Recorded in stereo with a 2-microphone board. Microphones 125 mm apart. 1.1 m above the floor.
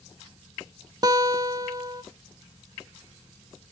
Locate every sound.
1.0 s a guitar: 35° right (ahead or behind), 0.8 m